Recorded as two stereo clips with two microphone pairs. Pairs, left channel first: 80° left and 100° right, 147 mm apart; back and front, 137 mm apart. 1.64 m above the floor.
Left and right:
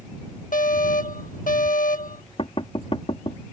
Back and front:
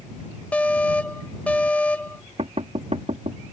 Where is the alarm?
100° left.